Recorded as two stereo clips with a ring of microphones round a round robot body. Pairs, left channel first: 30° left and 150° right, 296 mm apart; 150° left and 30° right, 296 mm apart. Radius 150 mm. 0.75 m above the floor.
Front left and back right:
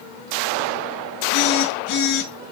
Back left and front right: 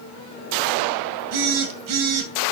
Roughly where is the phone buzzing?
Ahead.